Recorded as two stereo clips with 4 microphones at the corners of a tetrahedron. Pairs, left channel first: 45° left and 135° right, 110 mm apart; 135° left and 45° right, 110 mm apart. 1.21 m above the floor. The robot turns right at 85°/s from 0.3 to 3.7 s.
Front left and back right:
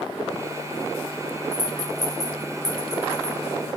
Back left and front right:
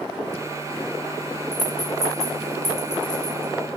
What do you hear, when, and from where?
1.5 s a rattle: 80° left, 4.5 m; by 3.8 s 95° right, 4.5 m